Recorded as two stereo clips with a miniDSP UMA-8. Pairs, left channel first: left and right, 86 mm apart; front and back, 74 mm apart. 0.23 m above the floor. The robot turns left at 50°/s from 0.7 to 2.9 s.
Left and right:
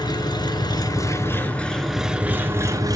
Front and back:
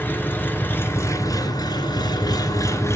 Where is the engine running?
60° left, 2.5 m; by 3.0 s 50° right, 2.5 m.